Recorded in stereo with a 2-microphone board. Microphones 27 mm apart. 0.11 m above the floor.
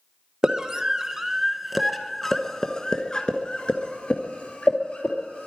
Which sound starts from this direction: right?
A scream, at 0.4 s.